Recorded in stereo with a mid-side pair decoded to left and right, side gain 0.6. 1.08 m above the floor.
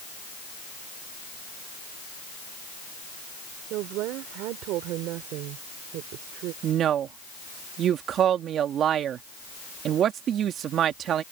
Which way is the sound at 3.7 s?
70° right.